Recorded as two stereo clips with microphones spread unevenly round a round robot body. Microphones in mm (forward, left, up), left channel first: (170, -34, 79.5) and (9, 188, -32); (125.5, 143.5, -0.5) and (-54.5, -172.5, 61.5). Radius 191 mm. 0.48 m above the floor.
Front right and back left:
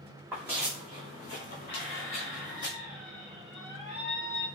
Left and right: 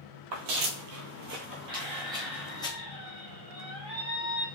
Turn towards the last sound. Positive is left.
turn(degrees=-95)